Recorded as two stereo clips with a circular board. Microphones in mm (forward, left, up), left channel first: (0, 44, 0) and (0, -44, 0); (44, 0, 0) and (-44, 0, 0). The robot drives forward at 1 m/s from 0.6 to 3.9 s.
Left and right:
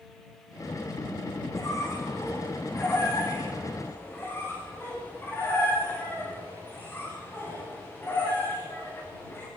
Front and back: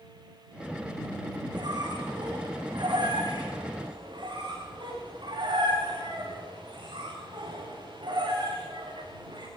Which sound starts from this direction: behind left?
A squeak, at 1.5 s.